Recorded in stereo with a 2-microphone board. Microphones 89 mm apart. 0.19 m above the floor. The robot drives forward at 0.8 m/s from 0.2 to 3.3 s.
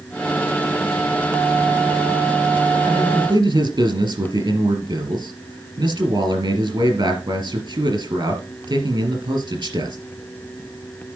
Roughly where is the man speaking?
Right.